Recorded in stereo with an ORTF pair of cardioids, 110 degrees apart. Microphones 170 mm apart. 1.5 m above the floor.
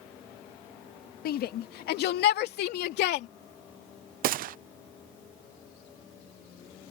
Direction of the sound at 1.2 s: 65° left.